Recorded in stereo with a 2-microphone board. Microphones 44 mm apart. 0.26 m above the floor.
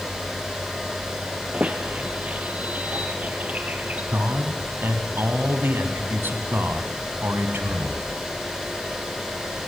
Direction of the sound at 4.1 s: 55° right (ahead or behind).